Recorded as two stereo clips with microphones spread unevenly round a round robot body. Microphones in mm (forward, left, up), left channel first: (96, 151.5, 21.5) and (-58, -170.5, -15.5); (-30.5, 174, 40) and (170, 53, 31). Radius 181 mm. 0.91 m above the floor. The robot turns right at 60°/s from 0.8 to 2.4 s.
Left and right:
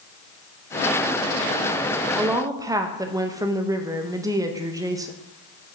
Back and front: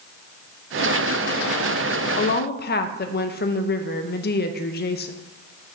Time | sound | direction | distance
2.2 | a woman speaking | 160° left | 0.6 m